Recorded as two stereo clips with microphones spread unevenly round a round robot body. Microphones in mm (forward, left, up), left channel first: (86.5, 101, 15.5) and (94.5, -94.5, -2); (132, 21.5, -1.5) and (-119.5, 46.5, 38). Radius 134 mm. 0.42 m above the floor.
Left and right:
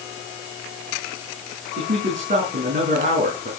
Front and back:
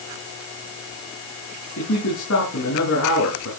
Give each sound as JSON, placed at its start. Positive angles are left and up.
{"t": 1.8, "sound": "a man speaking", "azimuth_deg": -45, "distance_m": 5.0}